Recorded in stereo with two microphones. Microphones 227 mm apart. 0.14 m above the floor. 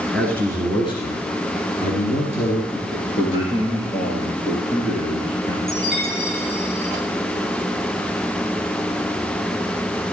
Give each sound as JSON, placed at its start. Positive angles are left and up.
{"t": 0.1, "sound": "a man speaking", "side_deg": 5, "distance_m": 1.9}
{"t": 2.7, "sound": "a man speaking", "side_deg": 25, "distance_m": 2.5}
{"t": 5.7, "sound": "a chime", "side_deg": 50, "distance_m": 3.5}